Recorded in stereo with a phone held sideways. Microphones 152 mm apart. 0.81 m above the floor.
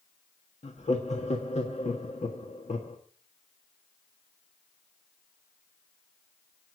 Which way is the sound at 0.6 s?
45° left (ahead or behind).